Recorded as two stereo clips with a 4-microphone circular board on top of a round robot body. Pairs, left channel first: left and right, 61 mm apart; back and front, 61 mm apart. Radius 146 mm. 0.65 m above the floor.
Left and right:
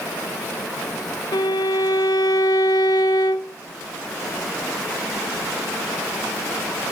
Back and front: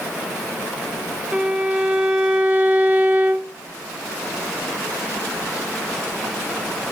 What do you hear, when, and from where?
1.3 s a violin: 70° left, 0.7 m